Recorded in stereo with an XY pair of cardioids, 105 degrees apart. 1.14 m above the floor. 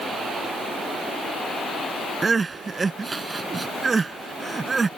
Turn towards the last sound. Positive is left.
turn(degrees=-30)